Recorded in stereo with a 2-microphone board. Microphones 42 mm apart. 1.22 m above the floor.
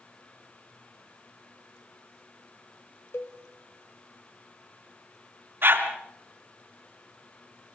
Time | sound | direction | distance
3.1 | a cowbell | 65° left (ahead or behind) | 2.5 m
5.6 | a dog barking | 60° right (ahead or behind) | 3 m